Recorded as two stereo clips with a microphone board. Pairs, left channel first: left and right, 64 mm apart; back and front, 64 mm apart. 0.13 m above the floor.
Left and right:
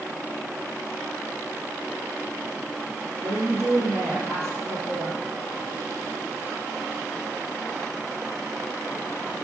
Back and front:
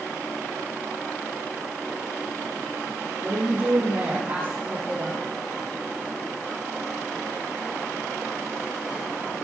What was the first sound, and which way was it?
A woman speaking, 50° right.